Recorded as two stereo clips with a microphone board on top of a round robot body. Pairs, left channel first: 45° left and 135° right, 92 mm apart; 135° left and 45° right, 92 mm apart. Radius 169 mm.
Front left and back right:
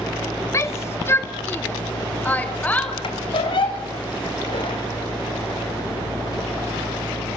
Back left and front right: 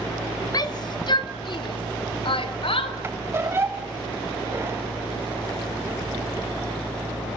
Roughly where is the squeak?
Ahead.